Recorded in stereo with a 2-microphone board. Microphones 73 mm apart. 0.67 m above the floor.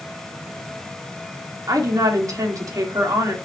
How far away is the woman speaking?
About 1.9 m.